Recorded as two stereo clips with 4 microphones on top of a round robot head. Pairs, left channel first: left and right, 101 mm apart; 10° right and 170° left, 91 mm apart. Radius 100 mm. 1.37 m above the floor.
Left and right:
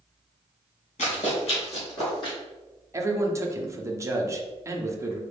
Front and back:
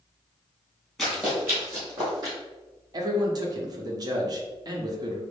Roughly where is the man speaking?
Behind right.